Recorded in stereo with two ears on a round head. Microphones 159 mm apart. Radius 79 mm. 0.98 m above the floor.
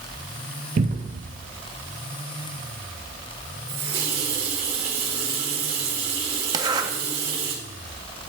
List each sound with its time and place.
0.8 s a cupboard door: 45° right (ahead or behind), 0.7 m
3.7 s a running tap: 35° right (ahead or behind), 2.5 m
6.5 s a zipper: 25° right (ahead or behind), 0.6 m